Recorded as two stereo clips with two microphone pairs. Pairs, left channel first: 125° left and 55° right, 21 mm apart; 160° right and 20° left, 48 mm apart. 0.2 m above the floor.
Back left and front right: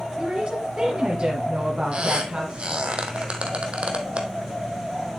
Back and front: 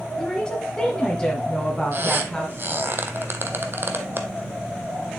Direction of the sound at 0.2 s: 95° right.